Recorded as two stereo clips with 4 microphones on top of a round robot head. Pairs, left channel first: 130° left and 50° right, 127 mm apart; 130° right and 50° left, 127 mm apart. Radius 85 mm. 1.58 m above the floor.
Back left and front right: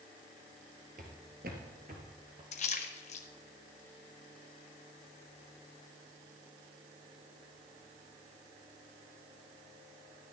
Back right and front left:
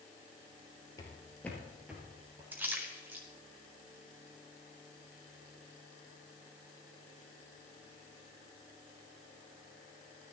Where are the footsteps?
75° right, 2.5 m; by 2.4 s 10° right, 2.5 m.